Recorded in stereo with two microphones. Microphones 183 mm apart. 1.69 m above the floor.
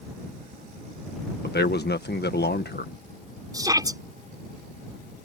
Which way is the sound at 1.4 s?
65° left (ahead or behind).